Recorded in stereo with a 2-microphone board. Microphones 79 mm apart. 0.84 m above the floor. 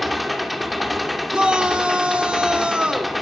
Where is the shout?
15° right (ahead or behind), 2.0 m.